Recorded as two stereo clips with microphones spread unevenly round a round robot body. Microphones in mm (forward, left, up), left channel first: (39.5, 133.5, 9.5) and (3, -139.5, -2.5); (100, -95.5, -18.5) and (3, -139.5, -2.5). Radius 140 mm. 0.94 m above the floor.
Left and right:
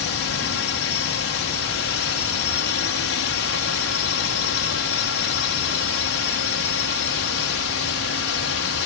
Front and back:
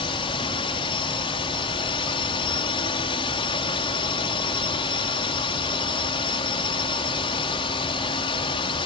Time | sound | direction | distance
0.0 | a drone | 55° left | ?